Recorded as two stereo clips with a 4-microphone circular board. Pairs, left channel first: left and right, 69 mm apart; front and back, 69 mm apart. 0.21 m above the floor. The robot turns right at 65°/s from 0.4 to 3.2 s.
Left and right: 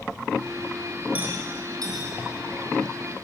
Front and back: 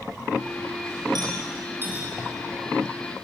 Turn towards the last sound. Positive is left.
turn(degrees=-30)